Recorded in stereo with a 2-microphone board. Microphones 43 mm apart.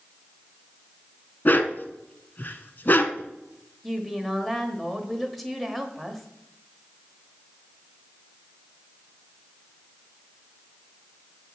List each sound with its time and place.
1.4 s a dog barking: 45° left (ahead or behind), 0.7 m
3.8 s a woman speaking: centre (ahead or behind), 1.2 m